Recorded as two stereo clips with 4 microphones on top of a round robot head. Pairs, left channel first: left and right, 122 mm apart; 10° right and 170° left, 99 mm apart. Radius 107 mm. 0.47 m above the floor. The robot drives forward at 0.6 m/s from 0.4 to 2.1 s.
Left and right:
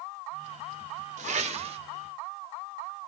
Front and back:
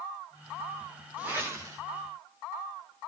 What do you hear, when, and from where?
1.2 s a whoosh: 115° right, 1.0 m; by 1.8 s 130° right, 1.2 m